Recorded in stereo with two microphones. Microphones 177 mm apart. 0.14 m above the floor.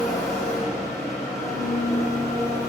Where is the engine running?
20° left (ahead or behind), 4 m.